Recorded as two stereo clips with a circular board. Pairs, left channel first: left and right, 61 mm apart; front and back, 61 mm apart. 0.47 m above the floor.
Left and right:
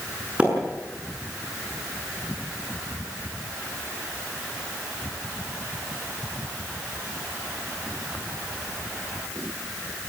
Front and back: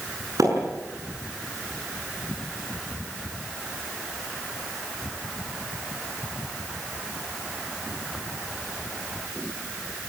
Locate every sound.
0.4 s a splash: 155° right, 7 m